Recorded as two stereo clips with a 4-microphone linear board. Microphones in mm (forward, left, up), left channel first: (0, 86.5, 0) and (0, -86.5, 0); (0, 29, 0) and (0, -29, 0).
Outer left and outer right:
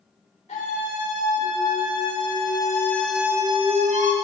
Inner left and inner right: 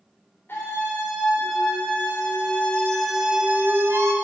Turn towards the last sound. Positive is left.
turn(degrees=-45)  # may be behind; listen again after turning